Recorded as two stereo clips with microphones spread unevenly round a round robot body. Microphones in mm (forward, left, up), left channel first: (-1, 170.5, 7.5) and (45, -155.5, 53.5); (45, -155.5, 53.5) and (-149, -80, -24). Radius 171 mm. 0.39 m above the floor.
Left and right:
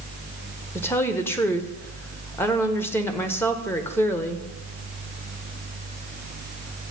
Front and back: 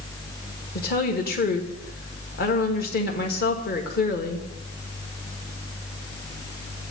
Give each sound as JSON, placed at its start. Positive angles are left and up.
{"t": 0.8, "sound": "a woman speaking", "azimuth_deg": 35, "distance_m": 1.5}